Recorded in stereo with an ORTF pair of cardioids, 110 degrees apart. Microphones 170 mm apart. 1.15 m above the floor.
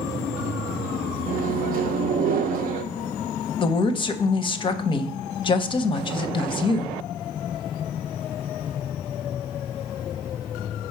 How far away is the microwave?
About 0.6 m.